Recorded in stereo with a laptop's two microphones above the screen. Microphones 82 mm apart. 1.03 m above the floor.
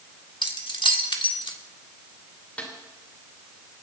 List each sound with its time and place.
0.4 s keys jangling: 80° left, 1.5 m
2.6 s a snare drum: 15° left (ahead or behind), 3 m